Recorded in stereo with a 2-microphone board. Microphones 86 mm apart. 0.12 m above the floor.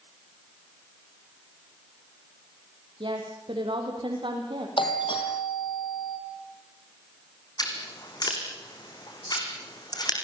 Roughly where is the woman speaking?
Right.